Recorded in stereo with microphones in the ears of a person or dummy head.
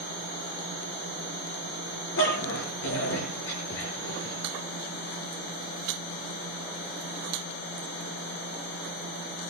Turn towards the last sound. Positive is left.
turn(degrees=60)  # may be behind; listen again after turning